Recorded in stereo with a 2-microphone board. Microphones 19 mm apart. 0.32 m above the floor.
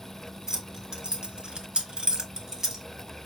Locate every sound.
0.5 s keys jangling: 40° right (ahead or behind), 2.5 m; by 2.8 s 20° right (ahead or behind), 2 m